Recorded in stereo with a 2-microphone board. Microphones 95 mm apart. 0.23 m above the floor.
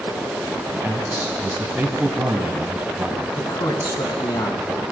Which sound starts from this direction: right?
A man speaking, at 0.7 s.